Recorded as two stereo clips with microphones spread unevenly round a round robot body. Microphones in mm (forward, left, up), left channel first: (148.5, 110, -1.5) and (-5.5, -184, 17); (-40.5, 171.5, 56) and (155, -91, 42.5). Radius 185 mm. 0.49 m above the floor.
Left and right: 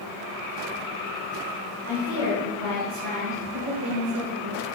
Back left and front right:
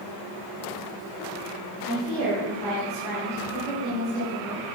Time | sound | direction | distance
1.8 | a woman speaking | 115° right | 4 m